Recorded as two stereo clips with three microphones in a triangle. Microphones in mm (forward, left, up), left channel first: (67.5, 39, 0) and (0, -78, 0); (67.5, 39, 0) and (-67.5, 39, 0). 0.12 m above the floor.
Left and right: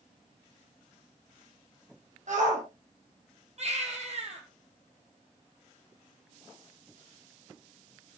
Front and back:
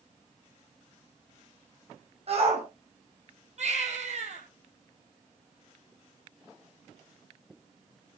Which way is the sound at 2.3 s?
140° right.